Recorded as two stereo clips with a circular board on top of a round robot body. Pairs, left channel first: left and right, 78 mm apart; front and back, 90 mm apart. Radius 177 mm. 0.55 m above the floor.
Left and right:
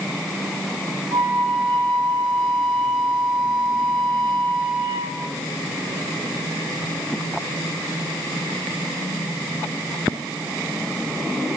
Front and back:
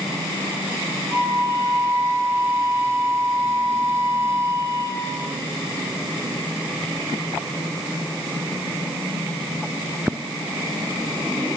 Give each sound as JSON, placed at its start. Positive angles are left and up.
{"t": 1.1, "sound": "a flute", "azimuth_deg": -120, "distance_m": 0.8}